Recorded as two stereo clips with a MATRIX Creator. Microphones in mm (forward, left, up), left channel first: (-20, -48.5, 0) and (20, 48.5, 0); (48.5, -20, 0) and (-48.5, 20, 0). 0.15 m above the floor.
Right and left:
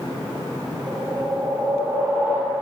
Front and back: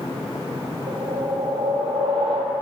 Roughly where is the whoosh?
Behind left.